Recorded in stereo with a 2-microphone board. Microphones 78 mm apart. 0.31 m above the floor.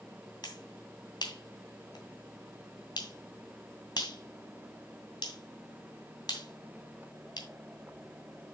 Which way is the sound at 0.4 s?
60° left (ahead or behind).